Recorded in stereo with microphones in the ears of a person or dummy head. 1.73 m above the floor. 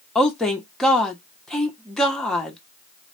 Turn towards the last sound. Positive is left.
turn(degrees=10)  # may be behind; listen again after turning